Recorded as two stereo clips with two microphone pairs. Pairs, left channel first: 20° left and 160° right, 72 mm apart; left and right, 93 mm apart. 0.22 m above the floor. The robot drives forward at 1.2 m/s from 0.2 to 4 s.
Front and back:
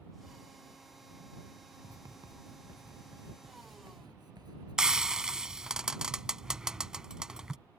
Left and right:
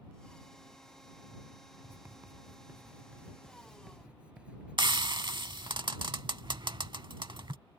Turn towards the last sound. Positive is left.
turn(degrees=-80)